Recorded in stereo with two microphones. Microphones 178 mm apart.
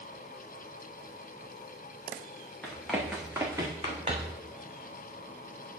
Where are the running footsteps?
10° left (ahead or behind), 2.5 m; by 4.4 s 45° right (ahead or behind), 2.5 m.